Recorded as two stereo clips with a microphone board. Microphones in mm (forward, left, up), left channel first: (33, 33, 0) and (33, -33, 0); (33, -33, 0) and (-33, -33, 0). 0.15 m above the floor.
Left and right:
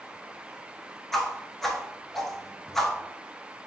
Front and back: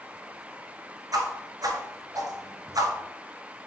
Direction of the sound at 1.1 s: 175° left.